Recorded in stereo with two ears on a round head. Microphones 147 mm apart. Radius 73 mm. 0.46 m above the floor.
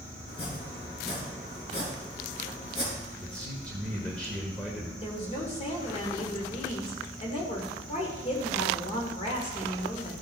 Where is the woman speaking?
40° left (ahead or behind), 1.6 m.